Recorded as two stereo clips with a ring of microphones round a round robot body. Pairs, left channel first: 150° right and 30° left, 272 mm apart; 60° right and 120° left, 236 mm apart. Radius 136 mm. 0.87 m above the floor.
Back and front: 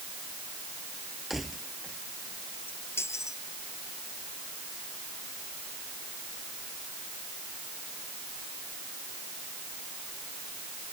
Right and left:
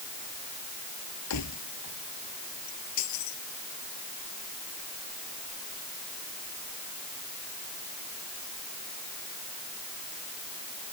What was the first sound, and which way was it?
Keys jangling, 60° right.